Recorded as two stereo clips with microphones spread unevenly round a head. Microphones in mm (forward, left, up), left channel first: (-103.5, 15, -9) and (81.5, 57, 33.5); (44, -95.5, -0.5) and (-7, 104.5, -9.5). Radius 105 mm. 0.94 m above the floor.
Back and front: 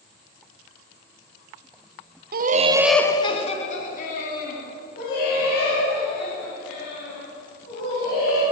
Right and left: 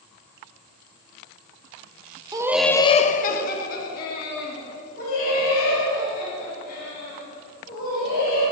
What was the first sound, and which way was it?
Laughter, 45° left.